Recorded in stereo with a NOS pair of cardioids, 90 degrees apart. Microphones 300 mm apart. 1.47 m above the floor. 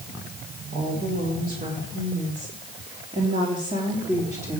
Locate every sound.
0.7 s a woman speaking: 35° right, 4.5 m; by 4.6 s 5° right, 3 m